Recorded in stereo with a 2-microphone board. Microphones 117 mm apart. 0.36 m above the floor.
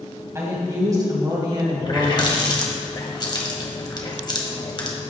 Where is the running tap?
35° left (ahead or behind), 1.4 m.